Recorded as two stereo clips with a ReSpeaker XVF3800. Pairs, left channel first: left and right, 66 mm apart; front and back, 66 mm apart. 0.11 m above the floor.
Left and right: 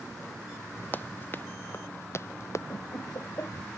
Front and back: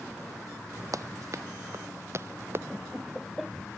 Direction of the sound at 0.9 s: 150° left.